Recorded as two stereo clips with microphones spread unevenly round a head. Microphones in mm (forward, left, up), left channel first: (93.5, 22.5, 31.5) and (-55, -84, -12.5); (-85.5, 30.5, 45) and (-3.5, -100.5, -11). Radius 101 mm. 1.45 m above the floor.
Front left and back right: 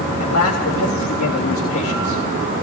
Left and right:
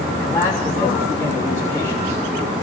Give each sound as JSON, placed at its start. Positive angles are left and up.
{"t": 0.2, "sound": "a man speaking", "azimuth_deg": 40, "distance_m": 3.5}